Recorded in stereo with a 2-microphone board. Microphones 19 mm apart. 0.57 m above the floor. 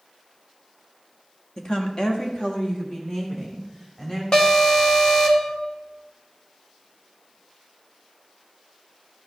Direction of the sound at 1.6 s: 30° left (ahead or behind).